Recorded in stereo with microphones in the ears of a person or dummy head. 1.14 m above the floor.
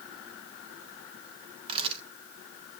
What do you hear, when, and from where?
1.7 s a camera shutter: 35° right (ahead or behind), 1.6 m